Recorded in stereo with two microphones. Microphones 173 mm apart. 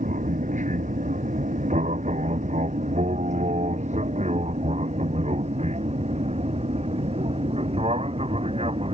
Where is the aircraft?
45° right (ahead or behind); by 8.9 s 35° right (ahead or behind).